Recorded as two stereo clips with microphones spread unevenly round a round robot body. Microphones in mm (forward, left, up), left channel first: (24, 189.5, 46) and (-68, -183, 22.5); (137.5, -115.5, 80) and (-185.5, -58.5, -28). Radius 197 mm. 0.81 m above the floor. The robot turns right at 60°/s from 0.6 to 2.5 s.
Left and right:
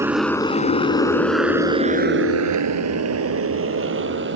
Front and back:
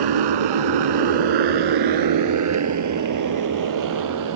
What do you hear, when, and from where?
0.0 s a motorcycle: 170° left; by 4.4 s 165° right